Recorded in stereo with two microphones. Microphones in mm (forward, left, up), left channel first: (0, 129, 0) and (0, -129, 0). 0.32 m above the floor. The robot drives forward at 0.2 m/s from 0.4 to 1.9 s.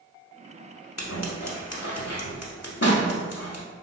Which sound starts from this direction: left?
Scissors, at 1.0 s.